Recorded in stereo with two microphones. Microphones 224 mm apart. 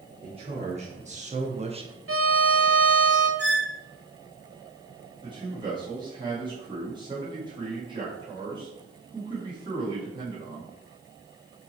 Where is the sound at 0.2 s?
25° right (ahead or behind), 1.3 m; by 2.0 s 20° right (ahead or behind), 0.7 m.